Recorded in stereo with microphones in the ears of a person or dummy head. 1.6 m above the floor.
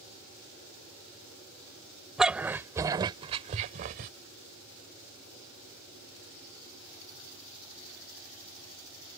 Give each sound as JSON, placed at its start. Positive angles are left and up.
{"t": 2.2, "sound": "a dog barking", "side_deg": -5}